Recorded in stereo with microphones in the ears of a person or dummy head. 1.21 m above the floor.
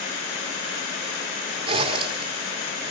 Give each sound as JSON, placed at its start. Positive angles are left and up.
{"t": 1.7, "sound": "a zipper", "side_deg": -35, "distance_m": 4.0}